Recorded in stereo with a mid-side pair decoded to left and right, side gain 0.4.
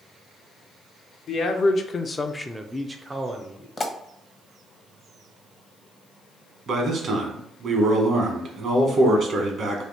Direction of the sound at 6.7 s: 60° right.